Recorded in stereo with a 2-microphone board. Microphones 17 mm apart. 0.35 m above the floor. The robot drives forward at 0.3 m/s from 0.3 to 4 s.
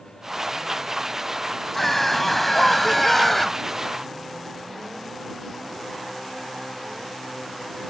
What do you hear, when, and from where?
1.7 s a scream: 5° left (ahead or behind)